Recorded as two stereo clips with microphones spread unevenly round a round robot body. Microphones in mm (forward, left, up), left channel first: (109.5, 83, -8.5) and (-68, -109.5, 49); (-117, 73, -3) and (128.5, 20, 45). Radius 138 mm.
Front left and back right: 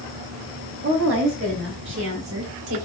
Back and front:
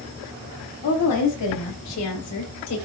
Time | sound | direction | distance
0.8 | a woman speaking | 175° left | 5 m